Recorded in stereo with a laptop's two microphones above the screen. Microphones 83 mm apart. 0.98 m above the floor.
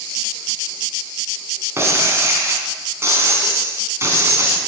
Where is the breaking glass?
30° right (ahead or behind), 3 m.